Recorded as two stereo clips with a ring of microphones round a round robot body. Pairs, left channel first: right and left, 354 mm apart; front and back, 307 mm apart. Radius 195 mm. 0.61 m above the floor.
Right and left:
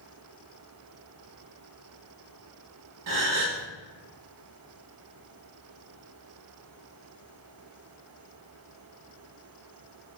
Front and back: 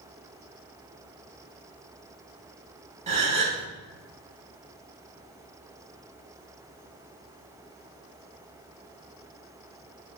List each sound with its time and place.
3.1 s a gasp: 115° left, 0.6 m